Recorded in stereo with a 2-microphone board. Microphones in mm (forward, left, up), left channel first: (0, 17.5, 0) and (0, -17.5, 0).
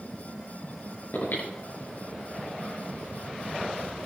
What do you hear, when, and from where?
1.1 s breathing: 75° left (ahead or behind), 7.5 m